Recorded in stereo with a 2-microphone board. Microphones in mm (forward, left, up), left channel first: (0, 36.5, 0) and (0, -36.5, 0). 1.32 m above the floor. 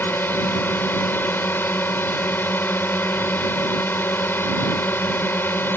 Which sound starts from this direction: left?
A drone, at 0.0 s.